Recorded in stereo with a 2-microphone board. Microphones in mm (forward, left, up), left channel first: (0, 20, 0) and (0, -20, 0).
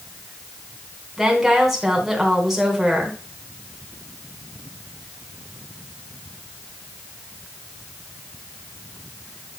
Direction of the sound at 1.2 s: 10° right (ahead or behind).